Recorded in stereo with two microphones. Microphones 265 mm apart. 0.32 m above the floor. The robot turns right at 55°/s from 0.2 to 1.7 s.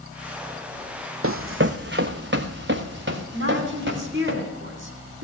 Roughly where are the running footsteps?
Right.